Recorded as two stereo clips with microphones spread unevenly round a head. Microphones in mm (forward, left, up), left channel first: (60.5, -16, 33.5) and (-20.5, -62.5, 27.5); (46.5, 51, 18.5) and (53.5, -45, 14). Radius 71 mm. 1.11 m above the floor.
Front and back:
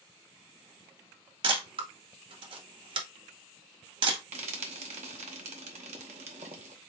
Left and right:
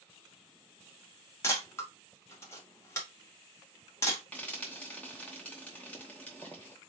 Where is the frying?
175° left, 0.8 m.